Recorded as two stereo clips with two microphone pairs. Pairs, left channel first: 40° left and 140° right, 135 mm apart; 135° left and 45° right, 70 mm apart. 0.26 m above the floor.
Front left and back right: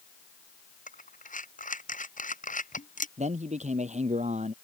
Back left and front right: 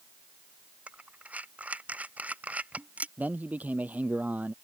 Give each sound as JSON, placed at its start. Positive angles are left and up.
{"t": 0.9, "sound": "breathing", "azimuth_deg": 25}
{"t": 3.2, "sound": "a man speaking", "azimuth_deg": -110}